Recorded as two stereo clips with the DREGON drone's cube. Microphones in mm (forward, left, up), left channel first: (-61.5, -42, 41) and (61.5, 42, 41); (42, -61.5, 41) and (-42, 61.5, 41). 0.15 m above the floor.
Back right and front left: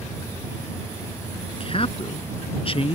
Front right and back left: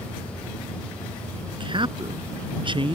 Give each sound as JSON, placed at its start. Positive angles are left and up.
{"t": 1.6, "sound": "a man speaking", "azimuth_deg": 170}